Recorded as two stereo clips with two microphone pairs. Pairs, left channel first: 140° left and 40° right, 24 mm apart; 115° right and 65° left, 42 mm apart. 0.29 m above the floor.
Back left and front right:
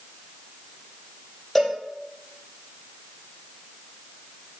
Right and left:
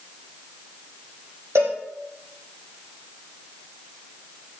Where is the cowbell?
55° left, 3.5 m.